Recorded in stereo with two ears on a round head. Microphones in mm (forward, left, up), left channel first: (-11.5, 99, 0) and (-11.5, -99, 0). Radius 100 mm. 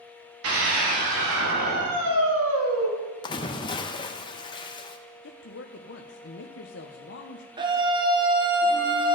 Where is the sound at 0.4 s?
70° right (ahead or behind), 2.5 m; by 2.9 s 75° right (ahead or behind), 2.5 m.